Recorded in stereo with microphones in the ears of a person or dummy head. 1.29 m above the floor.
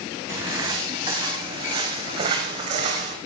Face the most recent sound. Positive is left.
turn(degrees=-40)  # may be behind; listen again after turning